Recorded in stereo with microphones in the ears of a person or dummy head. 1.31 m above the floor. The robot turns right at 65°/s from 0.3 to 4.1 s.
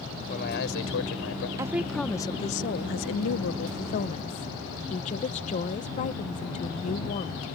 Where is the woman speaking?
20° right; by 7.5 s 145° left.